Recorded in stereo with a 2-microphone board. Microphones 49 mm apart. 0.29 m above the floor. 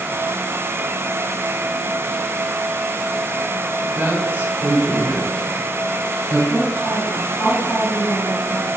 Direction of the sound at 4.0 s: 35° right (ahead or behind).